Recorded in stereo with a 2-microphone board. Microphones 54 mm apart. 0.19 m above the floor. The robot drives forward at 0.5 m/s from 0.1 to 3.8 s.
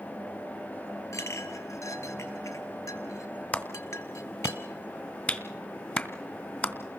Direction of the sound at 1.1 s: 65° left (ahead or behind).